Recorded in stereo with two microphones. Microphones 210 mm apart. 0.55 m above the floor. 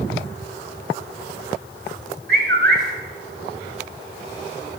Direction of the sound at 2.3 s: 50° right (ahead or behind).